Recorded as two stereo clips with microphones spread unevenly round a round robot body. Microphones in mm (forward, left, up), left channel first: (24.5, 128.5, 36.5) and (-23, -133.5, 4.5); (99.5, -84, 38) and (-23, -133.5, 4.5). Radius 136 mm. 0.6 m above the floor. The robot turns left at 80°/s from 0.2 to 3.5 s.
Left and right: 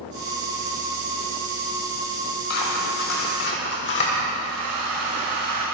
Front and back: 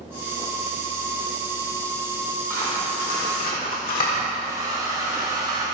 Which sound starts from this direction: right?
A hair dryer, at 4.4 s.